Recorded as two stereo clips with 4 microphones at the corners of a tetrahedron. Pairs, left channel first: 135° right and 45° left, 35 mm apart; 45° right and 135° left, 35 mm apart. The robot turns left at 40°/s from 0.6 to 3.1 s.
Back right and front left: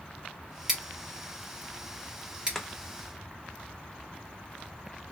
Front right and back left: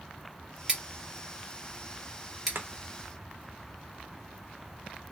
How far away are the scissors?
About 1.2 m.